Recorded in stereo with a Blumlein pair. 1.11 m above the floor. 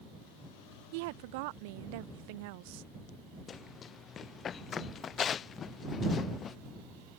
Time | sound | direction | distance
0.9 | a woman speaking | 50° right | ?
3.5 | running footsteps | 25° left | ?